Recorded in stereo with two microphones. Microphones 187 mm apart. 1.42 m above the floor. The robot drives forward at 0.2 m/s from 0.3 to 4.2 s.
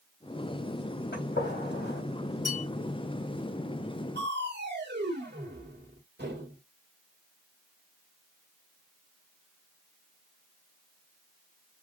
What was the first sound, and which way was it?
A gunshot, 70° left (ahead or behind).